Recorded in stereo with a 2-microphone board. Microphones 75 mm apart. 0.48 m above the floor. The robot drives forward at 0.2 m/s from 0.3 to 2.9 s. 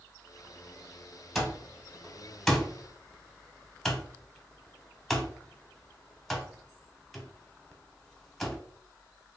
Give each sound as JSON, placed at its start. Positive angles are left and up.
{"t": 1.4, "sound": "an alarm clock", "side_deg": 0, "distance_m": 1.0}